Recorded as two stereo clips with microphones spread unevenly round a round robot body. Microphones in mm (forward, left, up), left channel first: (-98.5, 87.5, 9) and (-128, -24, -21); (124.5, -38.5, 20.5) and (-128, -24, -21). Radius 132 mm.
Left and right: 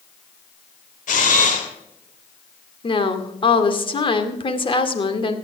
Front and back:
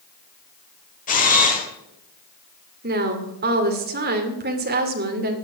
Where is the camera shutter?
60° left, 2.5 m.